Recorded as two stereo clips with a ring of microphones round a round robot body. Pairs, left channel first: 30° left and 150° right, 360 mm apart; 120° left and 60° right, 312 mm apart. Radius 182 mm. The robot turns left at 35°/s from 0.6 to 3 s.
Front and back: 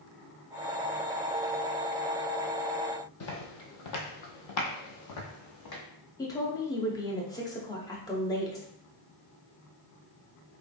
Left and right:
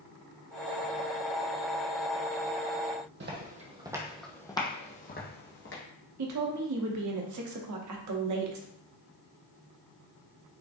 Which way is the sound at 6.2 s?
50° right.